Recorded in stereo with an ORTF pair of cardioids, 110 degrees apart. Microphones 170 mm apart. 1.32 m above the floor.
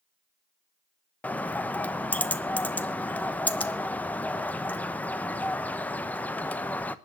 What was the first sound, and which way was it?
A bird, 10° left.